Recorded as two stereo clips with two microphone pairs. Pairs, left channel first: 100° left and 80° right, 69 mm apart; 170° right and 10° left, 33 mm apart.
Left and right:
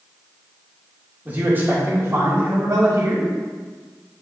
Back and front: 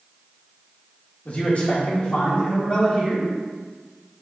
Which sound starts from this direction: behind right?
A man speaking, at 1.2 s.